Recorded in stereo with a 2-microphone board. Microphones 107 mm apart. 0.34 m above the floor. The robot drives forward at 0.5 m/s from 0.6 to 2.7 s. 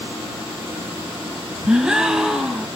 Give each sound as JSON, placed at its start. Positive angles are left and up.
{"t": 1.7, "sound": "a gasp", "side_deg": -10, "distance_m": 0.7}